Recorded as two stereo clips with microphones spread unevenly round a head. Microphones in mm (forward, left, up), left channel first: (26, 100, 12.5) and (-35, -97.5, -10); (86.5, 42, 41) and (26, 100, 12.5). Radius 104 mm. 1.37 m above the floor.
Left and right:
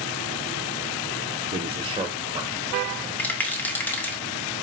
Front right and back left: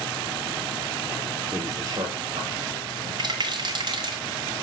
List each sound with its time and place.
1.5 s a man speaking: 160° right, 0.7 m; by 3.1 s 175° left, 2.5 m
3.2 s a rattle: 155° left, 1.2 m